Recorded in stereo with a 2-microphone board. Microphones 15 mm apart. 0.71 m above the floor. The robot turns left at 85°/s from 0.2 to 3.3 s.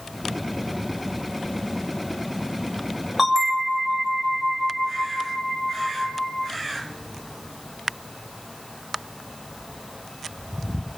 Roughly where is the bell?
Centre.